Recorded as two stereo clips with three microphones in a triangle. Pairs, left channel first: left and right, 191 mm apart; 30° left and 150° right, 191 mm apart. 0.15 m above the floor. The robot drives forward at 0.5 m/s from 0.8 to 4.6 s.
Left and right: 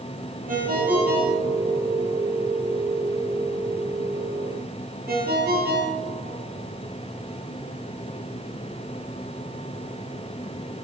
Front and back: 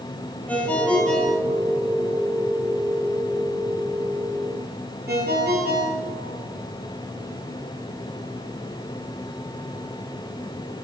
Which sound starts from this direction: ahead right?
A ringtone, at 0.5 s.